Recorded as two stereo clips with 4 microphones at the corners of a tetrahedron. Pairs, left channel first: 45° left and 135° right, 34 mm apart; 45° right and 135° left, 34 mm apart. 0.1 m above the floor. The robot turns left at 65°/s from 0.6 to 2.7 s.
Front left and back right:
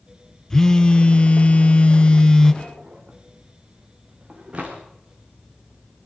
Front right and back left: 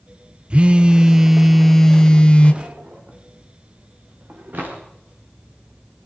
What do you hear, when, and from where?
0.5 s a phone buzzing: 110° left, 0.9 m; by 2.5 s 15° right, 0.9 m
2.6 s a drawer: 175° left, 4.5 m; by 4.8 s 170° left, 4.5 m